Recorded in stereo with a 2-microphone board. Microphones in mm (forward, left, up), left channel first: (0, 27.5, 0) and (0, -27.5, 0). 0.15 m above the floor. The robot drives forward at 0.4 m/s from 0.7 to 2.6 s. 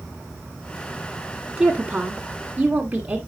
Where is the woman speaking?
20° right (ahead or behind), 1.2 m.